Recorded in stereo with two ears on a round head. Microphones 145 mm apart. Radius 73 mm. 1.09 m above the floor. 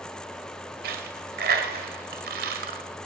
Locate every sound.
0.8 s a dropped coin: 65° right (ahead or behind), 1.6 m